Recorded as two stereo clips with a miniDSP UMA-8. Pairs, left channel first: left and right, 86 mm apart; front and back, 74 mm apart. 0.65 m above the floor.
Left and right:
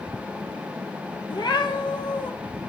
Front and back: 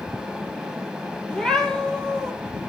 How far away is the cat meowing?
About 1.4 m.